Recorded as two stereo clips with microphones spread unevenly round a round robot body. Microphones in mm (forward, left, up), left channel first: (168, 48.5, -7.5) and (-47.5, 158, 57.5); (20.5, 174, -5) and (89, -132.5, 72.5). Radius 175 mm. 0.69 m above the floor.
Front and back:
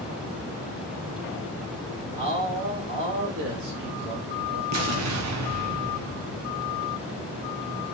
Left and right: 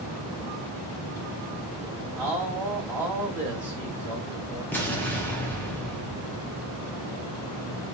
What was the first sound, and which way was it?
A man speaking, straight behind.